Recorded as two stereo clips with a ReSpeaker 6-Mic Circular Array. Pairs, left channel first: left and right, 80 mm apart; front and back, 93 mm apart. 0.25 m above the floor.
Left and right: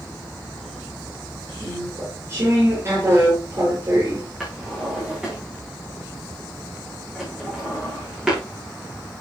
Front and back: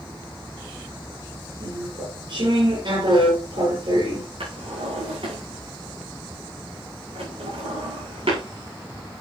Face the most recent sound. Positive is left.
turn(degrees=-170)